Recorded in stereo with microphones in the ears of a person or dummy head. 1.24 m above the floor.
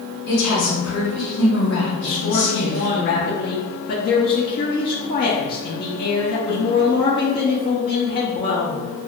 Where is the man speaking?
40° left (ahead or behind), 0.5 m.